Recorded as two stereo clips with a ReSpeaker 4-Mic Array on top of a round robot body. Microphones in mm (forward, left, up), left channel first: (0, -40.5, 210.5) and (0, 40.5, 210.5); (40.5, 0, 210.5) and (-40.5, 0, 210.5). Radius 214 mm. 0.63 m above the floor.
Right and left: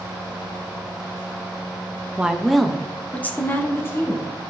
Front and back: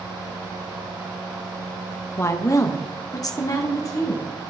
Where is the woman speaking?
25° left, 1.2 m; by 4.2 s 40° right, 2 m.